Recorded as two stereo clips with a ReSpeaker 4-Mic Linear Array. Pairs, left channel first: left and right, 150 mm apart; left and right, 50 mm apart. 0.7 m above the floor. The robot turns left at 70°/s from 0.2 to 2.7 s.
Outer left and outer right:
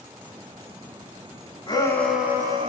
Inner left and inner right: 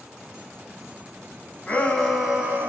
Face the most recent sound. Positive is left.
turn(degrees=-40)